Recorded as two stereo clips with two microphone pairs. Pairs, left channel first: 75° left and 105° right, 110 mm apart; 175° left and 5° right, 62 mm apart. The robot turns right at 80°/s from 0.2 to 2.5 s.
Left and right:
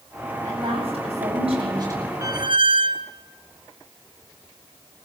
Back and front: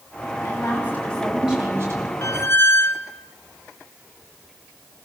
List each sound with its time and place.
0.4 s a woman speaking: 165° right, 7.5 m; by 2.1 s 30° right, 7.5 m
2.2 s a squeak: 165° right, 0.8 m; by 3.1 s 140° right, 0.8 m